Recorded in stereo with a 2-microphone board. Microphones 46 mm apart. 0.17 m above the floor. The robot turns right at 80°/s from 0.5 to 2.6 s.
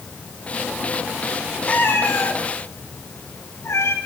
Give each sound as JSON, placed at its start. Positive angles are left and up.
{"t": 1.7, "sound": "a cat meowing", "side_deg": 30, "distance_m": 6.0}